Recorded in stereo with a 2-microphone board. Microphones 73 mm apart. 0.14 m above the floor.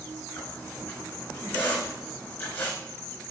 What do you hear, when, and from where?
0.4 s a squeak: 25° left (ahead or behind), 4.5 m